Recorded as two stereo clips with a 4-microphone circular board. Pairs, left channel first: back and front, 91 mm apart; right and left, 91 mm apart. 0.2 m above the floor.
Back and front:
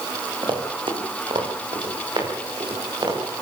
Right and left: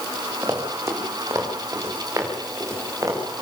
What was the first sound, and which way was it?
Running footsteps, 25° left.